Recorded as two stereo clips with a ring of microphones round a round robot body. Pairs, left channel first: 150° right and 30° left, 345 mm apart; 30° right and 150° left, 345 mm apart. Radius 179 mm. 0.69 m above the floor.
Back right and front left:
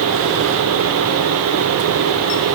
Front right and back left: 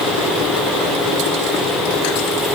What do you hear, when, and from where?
Only background noise.